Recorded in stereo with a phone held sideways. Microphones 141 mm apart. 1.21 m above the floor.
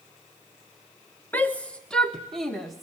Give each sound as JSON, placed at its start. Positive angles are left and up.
{"t": 1.3, "sound": "a shout", "side_deg": 10, "distance_m": 0.9}